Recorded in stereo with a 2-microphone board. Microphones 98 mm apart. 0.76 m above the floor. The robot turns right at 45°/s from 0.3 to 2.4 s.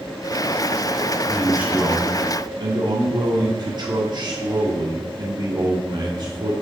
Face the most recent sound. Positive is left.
turn(degrees=-125)